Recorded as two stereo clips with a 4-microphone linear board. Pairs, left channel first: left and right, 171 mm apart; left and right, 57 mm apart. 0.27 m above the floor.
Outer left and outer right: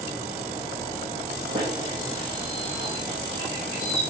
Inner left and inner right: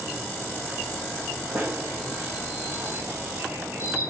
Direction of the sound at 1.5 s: 30° right (ahead or behind).